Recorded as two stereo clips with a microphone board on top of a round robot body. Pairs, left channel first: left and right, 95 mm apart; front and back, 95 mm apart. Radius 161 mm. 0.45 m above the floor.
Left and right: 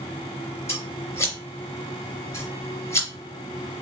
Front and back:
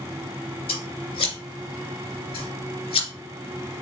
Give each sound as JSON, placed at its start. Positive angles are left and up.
{"t": 0.7, "sound": "scissors", "azimuth_deg": 25, "distance_m": 2.5}